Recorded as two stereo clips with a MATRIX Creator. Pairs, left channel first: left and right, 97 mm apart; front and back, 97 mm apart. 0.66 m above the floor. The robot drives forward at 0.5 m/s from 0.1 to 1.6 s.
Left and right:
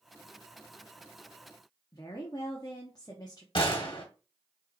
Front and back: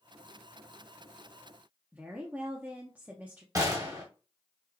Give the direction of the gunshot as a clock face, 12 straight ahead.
8 o'clock.